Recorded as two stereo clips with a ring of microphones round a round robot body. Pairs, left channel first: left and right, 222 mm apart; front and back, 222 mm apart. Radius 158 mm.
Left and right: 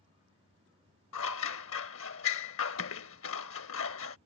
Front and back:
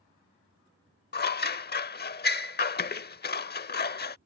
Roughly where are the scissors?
Ahead left.